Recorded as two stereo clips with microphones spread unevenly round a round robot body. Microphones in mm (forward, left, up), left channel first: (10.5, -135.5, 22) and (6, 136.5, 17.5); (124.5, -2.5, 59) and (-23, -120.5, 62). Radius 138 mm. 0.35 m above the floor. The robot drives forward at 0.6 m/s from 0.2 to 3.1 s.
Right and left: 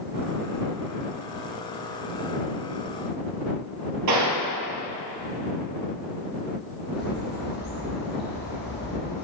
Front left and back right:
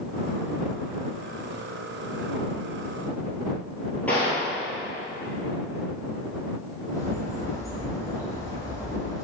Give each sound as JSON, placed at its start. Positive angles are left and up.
{"t": 4.1, "sound": "a gunshot", "azimuth_deg": 125, "distance_m": 1.8}
{"t": 6.9, "sound": "a bird", "azimuth_deg": -35, "distance_m": 3.0}